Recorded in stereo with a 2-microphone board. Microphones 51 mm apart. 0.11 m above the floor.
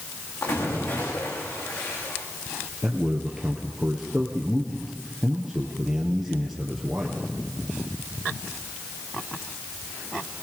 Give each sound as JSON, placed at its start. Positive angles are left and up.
{"t": 0.4, "sound": "a splash", "side_deg": 70, "distance_m": 9.5}
{"t": 2.8, "sound": "a man speaking", "side_deg": -5, "distance_m": 2.0}